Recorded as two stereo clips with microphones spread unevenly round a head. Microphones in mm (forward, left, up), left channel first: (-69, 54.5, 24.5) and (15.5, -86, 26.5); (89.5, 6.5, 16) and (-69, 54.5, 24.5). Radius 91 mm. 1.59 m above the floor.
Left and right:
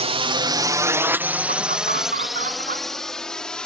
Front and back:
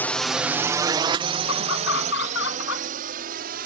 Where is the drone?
90° right; by 3.7 s 155° right.